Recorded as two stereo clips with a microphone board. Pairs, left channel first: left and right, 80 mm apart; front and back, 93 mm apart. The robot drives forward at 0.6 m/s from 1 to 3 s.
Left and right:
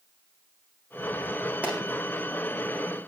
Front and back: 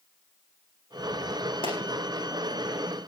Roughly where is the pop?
Ahead.